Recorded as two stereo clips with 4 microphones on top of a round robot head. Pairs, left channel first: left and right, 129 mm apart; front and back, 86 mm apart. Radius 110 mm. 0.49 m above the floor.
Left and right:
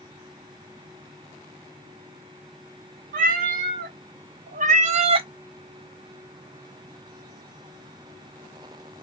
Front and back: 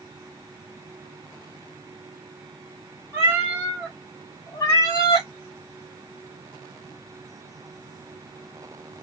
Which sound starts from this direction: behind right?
A cat meowing, at 3.1 s.